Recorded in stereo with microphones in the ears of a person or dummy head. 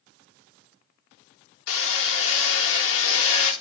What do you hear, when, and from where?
1.7 s hammering: 70° left (ahead or behind), 2.5 m